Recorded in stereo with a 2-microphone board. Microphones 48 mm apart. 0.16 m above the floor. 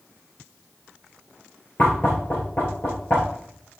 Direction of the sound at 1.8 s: 40° left (ahead or behind).